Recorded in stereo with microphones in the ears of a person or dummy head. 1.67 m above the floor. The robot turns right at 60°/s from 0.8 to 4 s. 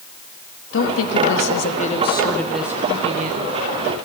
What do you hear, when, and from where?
0.7 s a woman speaking: 75° left, 2 m; by 3.6 s 115° right, 2 m